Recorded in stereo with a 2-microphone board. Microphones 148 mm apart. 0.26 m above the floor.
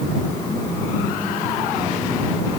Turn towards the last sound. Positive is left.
No sound to turn to.